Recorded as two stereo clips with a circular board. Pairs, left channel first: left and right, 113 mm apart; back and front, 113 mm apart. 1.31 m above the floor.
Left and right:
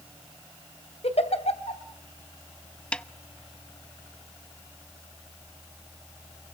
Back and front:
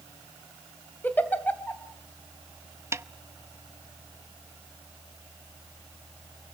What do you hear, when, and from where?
1.0 s a giggle: 105° left, 2.5 m
2.9 s a snare drum: 20° left, 0.6 m